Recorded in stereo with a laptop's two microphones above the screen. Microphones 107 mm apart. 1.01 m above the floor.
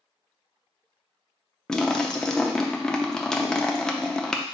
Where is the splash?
5° left (ahead or behind), 0.5 m.